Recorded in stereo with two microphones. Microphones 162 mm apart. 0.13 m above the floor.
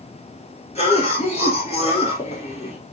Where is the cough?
45° left (ahead or behind), 1.9 m.